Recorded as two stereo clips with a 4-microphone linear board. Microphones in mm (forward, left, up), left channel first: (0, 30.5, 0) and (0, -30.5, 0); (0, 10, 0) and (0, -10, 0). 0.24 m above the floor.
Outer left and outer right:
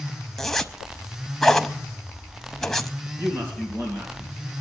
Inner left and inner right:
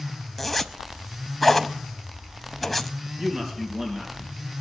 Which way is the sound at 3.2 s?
45° right (ahead or behind).